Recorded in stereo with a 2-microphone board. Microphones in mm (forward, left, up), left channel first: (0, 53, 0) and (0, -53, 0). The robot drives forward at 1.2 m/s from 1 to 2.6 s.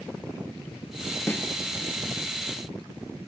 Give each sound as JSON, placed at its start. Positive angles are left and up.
{"t": 1.3, "sound": "a snare drum", "side_deg": 20, "distance_m": 1.2}